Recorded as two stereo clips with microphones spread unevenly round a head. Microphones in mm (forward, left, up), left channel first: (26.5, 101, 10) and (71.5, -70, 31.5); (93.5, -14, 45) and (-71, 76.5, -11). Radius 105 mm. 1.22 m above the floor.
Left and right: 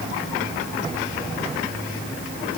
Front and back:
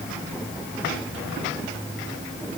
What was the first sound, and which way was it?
Only background noise.